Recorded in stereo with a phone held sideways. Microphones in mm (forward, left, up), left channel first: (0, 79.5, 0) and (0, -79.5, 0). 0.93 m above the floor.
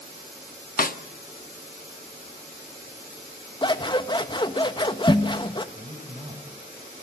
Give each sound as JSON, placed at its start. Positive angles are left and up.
{"t": 0.8, "sound": "a snare drum", "side_deg": 65, "distance_m": 1.2}
{"t": 3.6, "sound": "scissors", "side_deg": 30, "distance_m": 1.2}
{"t": 5.8, "sound": "a man speaking", "side_deg": -40, "distance_m": 4.0}